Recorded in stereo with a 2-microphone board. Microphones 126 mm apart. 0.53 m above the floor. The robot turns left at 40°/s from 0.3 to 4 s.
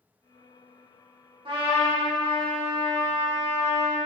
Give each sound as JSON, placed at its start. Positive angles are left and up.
{"t": 1.4, "sound": "a trumpet", "azimuth_deg": -65, "distance_m": 0.9}